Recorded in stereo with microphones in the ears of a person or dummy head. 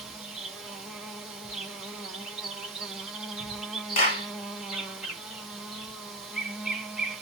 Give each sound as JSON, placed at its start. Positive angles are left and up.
{"t": 0.0, "sound": "an insect", "side_deg": -5, "distance_m": 0.8}
{"t": 4.0, "sound": "a clap", "side_deg": 40, "distance_m": 1.3}